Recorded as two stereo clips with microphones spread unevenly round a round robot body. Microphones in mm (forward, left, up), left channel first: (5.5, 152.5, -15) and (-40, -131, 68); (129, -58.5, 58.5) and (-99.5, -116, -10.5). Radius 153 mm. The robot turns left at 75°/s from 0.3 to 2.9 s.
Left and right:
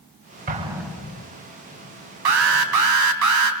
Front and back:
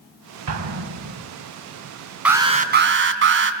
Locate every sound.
0.5 s an explosion: 165° right, 2.5 m; by 1.3 s 135° left, 2.5 m
2.2 s an alarm: 80° right, 3 m; by 3.5 s 130° right, 3 m